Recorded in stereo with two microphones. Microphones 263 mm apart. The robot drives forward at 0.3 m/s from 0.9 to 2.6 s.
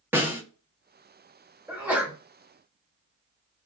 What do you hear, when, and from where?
0.1 s a snare drum: 5° right (ahead or behind), 0.8 m
1.7 s a sneeze: 5° right (ahead or behind), 1.0 m